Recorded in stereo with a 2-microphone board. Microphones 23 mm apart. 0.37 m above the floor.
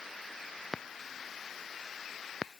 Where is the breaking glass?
No breaking glass in this recording.